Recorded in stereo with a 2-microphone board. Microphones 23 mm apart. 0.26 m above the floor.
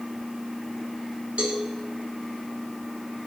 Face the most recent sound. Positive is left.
turn(degrees=-65)  # may be behind; listen again after turning